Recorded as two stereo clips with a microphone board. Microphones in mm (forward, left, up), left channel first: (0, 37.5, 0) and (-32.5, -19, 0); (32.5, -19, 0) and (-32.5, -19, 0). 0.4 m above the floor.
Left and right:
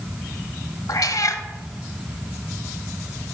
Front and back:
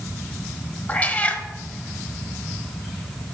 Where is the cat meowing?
60° left, 0.7 m.